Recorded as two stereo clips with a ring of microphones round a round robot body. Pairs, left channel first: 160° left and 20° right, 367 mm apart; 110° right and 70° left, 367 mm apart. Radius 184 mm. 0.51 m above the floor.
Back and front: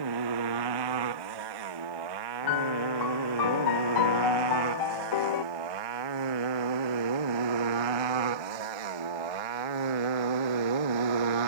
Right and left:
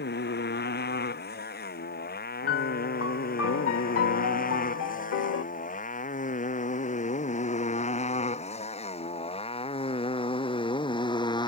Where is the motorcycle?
50° right; by 11.5 s 35° right.